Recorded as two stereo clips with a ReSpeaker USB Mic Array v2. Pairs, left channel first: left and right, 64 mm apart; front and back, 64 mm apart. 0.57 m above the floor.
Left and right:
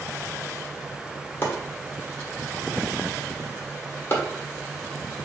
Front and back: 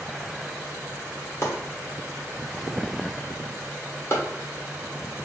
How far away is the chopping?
About 1.3 m.